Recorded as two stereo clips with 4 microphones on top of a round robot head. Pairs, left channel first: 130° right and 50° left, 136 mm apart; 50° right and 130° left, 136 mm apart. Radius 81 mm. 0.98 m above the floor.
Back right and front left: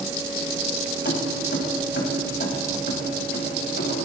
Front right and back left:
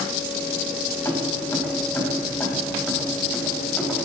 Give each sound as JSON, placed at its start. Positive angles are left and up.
{"t": 1.1, "sound": "keys jangling", "azimuth_deg": -120, "distance_m": 5.5}